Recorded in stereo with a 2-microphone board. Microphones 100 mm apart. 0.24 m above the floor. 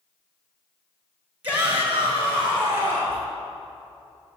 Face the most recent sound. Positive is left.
turn(degrees=-20)  # may be behind; listen again after turning